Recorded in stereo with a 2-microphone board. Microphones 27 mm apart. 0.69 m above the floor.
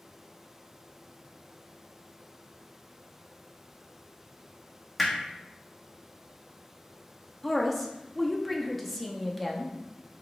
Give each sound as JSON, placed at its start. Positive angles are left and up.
{"t": 5.0, "sound": "hammering", "side_deg": 5, "distance_m": 1.0}
{"t": 7.4, "sound": "a woman speaking", "side_deg": 10, "distance_m": 0.6}